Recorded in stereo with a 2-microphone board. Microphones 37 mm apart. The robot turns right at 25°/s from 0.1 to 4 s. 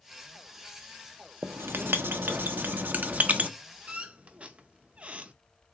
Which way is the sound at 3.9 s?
35° right (ahead or behind).